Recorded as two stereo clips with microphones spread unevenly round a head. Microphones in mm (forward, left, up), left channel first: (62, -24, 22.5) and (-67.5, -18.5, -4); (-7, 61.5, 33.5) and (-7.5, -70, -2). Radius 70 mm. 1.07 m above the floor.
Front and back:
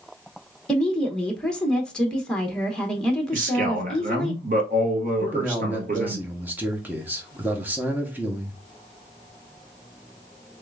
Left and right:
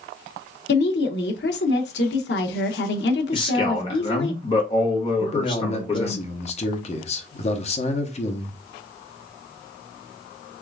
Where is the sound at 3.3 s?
145° left, 1.3 m.